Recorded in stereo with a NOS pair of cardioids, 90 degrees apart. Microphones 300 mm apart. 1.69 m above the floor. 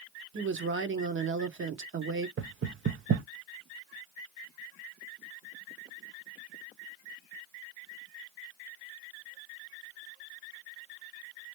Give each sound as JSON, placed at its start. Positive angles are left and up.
{"t": 0.3, "sound": "a woman speaking", "azimuth_deg": -45, "distance_m": 1.2}
{"t": 2.4, "sound": "knocking", "azimuth_deg": -45, "distance_m": 0.8}